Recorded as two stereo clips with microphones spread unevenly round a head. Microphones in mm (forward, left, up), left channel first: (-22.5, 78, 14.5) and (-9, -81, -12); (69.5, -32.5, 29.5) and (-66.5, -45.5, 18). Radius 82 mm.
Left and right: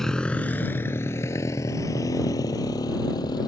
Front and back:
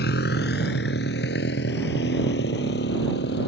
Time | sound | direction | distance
0.0 | a motorcycle | 10° left | ?